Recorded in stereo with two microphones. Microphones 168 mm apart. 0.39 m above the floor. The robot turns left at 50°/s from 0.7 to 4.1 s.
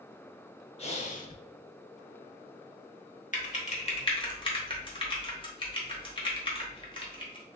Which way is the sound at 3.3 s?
50° left (ahead or behind).